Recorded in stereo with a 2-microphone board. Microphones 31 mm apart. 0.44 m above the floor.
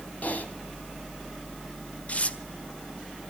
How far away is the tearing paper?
About 1.4 m.